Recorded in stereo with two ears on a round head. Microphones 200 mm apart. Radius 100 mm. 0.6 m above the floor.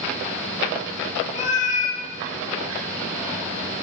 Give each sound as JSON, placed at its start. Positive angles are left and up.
{"t": 1.4, "sound": "a cat meowing", "side_deg": 35, "distance_m": 1.0}